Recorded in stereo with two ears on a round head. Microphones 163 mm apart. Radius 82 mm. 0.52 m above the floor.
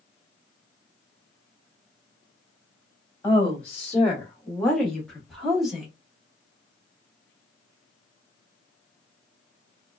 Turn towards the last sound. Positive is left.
turn(degrees=-5)  # may be behind; listen again after turning